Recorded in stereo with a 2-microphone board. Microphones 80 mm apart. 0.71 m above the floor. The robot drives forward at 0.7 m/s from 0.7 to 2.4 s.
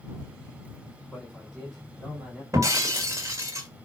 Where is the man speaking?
5° right (ahead or behind), 3 m.